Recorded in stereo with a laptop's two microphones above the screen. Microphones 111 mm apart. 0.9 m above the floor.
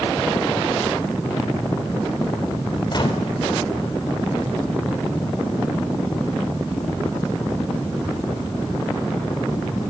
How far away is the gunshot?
About 4 m.